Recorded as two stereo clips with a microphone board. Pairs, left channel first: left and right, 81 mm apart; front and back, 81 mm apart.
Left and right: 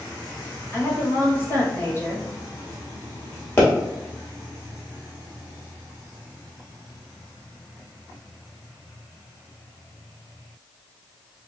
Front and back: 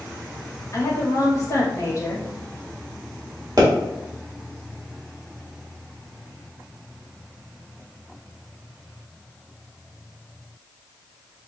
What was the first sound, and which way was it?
A woman speaking, 35° left.